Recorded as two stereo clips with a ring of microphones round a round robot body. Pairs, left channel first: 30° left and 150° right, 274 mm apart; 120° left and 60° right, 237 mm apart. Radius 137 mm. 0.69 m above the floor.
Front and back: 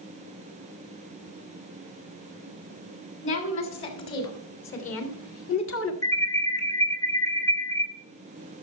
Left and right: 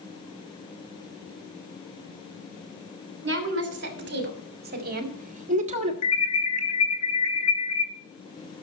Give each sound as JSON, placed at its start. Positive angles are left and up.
{"t": 3.2, "sound": "a woman speaking", "azimuth_deg": -20, "distance_m": 3.0}
{"t": 6.0, "sound": "an alarm", "azimuth_deg": 110, "distance_m": 2.0}